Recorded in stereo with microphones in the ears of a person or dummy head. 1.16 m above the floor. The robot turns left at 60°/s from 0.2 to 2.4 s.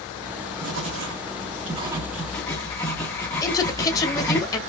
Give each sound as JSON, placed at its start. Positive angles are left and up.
{"t": 0.6, "sound": "writing", "side_deg": -80, "distance_m": 1.6}
{"t": 3.4, "sound": "a woman speaking", "side_deg": 15, "distance_m": 1.9}